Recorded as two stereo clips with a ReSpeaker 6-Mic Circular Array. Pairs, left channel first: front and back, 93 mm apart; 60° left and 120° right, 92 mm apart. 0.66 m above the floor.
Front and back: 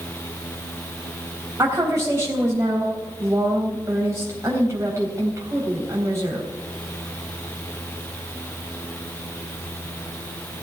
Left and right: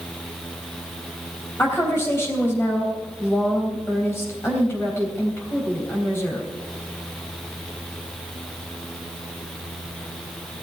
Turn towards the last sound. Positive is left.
turn(degrees=120)